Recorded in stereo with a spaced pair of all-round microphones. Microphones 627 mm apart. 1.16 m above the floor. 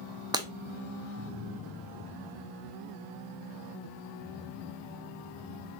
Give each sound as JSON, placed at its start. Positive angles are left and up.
{"t": 0.3, "sound": "breaking glass", "side_deg": -5, "distance_m": 0.5}